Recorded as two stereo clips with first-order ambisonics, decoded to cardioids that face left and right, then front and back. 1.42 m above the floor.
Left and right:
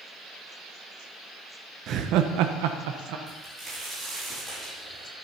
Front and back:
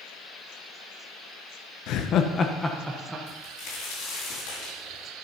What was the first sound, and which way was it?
Laughter, 40° right.